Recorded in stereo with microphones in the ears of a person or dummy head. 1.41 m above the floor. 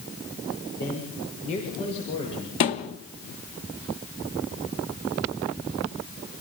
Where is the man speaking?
50° left (ahead or behind), 6 m; by 2.5 s 30° left (ahead or behind), 7.5 m.